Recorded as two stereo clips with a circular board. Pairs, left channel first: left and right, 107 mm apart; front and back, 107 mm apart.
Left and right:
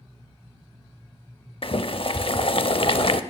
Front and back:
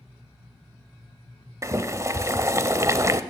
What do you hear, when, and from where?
1.6 s boiling: 120° left, 0.6 m